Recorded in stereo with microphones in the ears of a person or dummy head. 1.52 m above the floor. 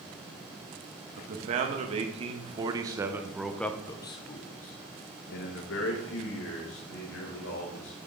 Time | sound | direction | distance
1.2 | a man speaking | 45° right (ahead or behind) | 1.8 m